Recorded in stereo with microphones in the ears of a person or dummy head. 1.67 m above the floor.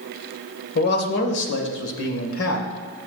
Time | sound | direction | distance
0.8 | a man speaking | 55° left (ahead or behind) | 1.6 m